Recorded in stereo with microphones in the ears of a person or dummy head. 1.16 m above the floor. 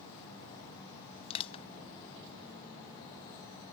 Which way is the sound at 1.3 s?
35° left (ahead or behind).